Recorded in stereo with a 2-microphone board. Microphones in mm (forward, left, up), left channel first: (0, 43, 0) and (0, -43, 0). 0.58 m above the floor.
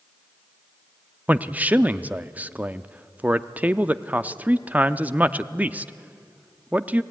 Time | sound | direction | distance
1.3 | a man speaking | 20° right (ahead or behind) | 0.6 m